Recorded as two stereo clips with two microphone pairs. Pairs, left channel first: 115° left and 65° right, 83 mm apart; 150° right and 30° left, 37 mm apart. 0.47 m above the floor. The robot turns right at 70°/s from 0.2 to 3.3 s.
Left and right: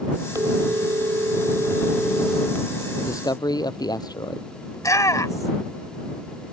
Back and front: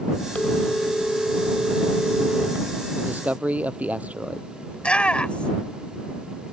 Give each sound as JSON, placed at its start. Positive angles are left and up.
{"t": 0.3, "sound": "a phone ringing", "azimuth_deg": -105}
{"t": 3.0, "sound": "a man speaking", "azimuth_deg": 55}
{"t": 4.7, "sound": "a shout", "azimuth_deg": 155}